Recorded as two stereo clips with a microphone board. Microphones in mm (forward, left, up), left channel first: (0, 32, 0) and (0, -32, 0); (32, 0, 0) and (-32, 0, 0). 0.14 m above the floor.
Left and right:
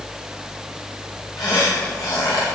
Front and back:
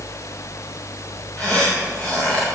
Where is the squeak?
75° left, 7.5 m.